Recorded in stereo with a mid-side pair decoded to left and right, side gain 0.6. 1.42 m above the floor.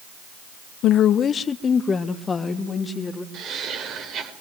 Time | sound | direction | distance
0.8 | a woman speaking | 60° left | 0.8 m
3.3 | laughter | 55° right | 5 m